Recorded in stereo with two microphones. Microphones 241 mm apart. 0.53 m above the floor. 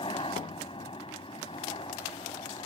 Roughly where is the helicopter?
Left.